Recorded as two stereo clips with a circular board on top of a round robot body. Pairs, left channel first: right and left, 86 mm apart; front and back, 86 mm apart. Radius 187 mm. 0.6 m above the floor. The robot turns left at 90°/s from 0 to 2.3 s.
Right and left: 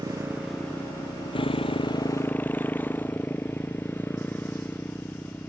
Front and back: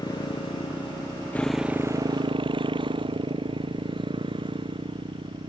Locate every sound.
0.0 s a motorcycle: 50° left; by 5.5 s 160° right